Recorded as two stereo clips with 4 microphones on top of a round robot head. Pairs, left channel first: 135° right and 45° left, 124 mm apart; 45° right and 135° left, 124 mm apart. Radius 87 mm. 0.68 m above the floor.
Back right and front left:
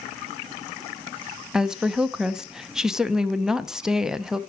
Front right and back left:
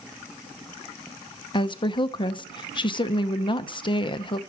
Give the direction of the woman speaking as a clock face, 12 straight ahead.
1 o'clock.